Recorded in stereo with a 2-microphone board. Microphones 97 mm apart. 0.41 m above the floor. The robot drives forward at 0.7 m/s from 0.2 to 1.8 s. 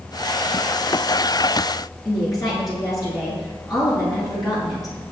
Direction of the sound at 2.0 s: 40° left (ahead or behind).